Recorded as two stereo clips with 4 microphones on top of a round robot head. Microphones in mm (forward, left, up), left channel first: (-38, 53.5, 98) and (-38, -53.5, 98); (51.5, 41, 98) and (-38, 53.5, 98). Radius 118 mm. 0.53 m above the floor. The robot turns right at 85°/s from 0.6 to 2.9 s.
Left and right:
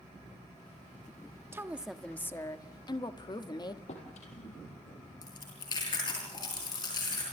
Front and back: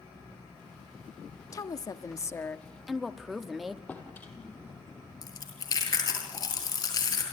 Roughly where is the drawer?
Ahead left.